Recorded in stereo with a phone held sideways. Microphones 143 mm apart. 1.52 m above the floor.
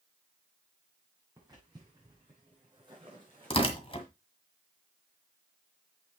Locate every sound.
1.4 s footsteps: 25° right (ahead or behind), 5 m; by 4.1 s 40° right (ahead or behind), 4.5 m
3.5 s tearing paper: 40° left (ahead or behind), 1.7 m